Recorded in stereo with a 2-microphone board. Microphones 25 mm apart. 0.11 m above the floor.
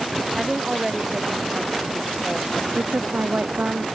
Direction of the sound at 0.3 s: 15° right (ahead or behind).